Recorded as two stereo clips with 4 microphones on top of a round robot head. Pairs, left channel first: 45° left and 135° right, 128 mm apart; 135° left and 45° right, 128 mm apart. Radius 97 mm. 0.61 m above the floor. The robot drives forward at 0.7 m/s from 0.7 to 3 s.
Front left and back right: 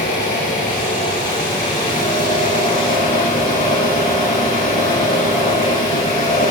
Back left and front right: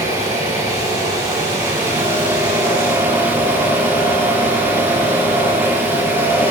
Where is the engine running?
25° left, 8 m; by 6.5 s 30° left, 6.5 m.